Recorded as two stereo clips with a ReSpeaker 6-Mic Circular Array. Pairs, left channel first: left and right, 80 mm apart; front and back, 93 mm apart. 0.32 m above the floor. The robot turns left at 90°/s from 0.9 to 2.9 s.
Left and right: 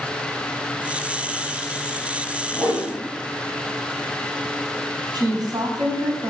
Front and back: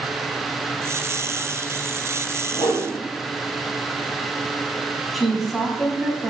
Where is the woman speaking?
90° right, 2.5 m.